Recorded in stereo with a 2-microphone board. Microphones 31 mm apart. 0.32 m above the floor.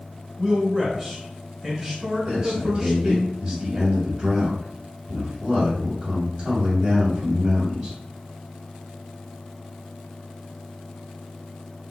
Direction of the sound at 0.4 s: Centre (ahead or behind).